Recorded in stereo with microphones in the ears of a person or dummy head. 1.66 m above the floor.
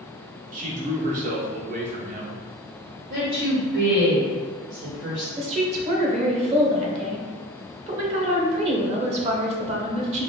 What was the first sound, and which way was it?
A man speaking, 45° right (ahead or behind).